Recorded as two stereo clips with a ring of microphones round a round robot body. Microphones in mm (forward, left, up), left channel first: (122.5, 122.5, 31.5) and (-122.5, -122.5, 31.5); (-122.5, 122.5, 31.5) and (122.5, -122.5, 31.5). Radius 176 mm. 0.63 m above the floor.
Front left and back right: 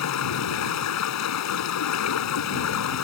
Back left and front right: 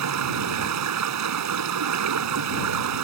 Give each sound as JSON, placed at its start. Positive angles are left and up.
{"t": 0.0, "sound": "running water", "azimuth_deg": 0}